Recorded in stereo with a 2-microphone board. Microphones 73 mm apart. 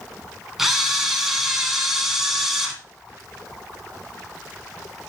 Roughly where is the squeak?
No squeak in this recording.